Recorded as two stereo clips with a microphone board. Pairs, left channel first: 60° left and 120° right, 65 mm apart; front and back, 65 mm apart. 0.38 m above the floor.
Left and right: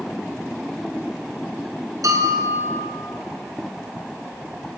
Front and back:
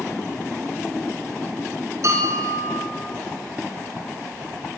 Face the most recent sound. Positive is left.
turn(degrees=-145)